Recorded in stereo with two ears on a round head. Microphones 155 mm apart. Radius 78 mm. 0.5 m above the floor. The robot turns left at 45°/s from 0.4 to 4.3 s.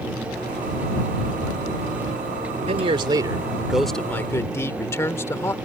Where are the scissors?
I don't hear scissors.